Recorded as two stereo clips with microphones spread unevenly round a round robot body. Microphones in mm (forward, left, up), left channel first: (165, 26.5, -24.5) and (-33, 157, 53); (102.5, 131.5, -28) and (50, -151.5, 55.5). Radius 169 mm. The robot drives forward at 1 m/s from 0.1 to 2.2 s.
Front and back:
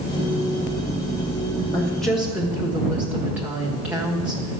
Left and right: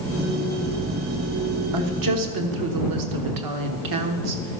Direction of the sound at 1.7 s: 85° right.